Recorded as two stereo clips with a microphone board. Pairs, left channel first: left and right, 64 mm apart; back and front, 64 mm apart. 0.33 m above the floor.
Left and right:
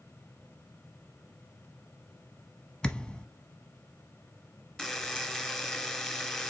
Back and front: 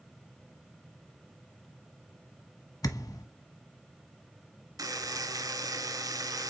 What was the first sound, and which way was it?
A thud, 165° left.